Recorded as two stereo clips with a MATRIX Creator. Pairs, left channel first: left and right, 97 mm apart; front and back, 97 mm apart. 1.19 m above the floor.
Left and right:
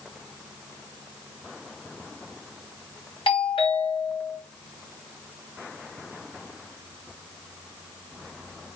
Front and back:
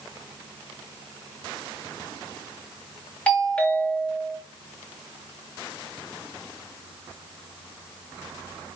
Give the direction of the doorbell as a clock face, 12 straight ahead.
9 o'clock.